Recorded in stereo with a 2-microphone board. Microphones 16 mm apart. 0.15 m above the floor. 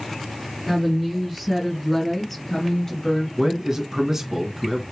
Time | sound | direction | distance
0.7 | a woman speaking | 10° right (ahead or behind) | 3 m
3.4 | a man speaking | 30° right (ahead or behind) | 1.5 m